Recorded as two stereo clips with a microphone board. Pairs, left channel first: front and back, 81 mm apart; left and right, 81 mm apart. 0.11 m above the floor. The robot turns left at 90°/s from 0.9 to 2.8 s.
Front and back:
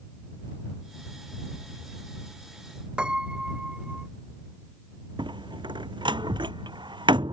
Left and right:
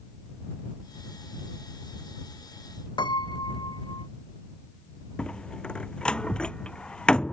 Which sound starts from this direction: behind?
A door slam, at 5.2 s.